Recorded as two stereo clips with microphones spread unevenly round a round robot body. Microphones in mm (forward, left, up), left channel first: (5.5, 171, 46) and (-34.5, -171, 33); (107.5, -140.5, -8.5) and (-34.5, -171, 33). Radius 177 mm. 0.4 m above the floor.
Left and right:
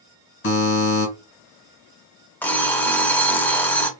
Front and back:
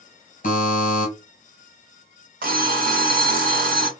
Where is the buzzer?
25° left, 2 m.